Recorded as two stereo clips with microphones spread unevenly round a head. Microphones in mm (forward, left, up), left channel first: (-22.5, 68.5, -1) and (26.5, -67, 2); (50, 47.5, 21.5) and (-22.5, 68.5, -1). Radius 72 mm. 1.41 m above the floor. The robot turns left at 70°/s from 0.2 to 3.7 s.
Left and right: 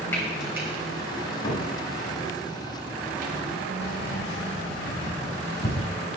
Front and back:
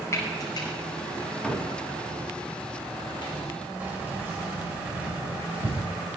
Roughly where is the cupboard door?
Left.